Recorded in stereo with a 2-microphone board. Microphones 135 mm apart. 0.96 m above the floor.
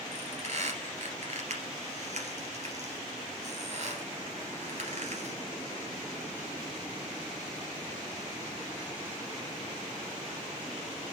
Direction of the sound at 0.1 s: 60° right (ahead or behind).